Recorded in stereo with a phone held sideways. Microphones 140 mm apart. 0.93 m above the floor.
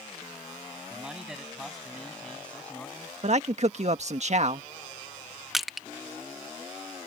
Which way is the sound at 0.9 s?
10° right (ahead or behind).